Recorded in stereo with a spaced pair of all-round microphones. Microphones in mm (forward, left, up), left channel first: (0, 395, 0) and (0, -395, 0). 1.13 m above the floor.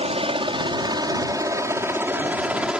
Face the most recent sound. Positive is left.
turn(degrees=0)  # may be behind; listen again after turning